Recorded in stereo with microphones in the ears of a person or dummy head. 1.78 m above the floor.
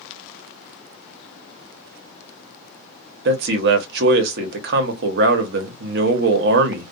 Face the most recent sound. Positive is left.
turn(degrees=-60)  # may be behind; listen again after turning